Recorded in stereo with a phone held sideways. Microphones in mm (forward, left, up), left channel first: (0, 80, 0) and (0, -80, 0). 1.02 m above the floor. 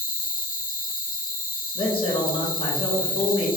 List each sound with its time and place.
0.0 s an insect: 60° left (ahead or behind), 0.8 m
1.8 s a man speaking: 35° left (ahead or behind), 0.9 m